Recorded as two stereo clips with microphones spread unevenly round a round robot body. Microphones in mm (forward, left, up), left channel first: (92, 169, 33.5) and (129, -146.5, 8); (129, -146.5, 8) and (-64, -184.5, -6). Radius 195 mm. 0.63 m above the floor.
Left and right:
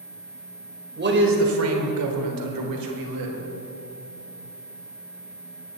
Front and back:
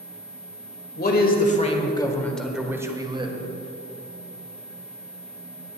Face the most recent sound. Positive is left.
turn(degrees=-105)